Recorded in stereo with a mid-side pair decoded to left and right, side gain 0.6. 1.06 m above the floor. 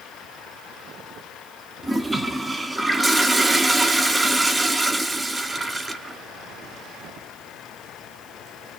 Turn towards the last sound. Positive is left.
turn(degrees=-10)